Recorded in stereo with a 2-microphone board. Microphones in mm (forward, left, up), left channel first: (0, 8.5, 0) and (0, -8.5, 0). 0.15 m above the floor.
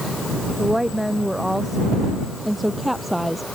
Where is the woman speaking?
10° right (ahead or behind); by 3.5 s centre (ahead or behind).